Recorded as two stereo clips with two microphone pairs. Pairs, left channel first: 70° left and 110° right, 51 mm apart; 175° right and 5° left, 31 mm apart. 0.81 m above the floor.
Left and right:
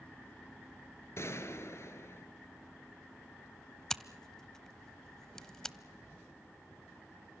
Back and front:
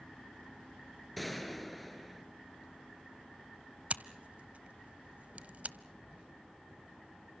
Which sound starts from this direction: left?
A gunshot, at 1.2 s.